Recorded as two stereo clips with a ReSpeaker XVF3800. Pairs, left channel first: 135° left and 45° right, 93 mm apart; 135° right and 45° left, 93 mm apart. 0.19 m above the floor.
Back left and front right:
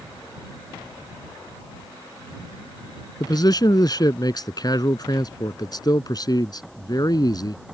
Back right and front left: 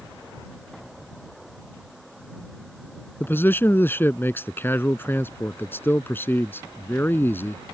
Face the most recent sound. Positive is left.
turn(degrees=165)